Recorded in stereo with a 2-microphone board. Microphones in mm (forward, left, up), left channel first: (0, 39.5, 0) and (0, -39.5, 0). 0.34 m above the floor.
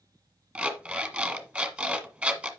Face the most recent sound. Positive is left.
turn(degrees=-20)  # may be behind; listen again after turning